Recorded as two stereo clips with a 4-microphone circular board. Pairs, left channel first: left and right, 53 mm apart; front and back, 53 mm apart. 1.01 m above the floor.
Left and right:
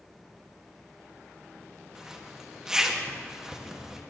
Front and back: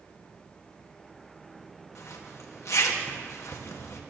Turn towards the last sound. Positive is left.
turn(degrees=-15)